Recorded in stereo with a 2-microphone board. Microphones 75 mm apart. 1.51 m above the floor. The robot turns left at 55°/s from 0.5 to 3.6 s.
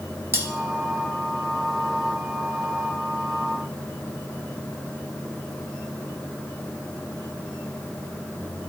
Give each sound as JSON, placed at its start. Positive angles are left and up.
{"t": 0.3, "sound": "cutlery clinking", "side_deg": -35, "distance_m": 1.3}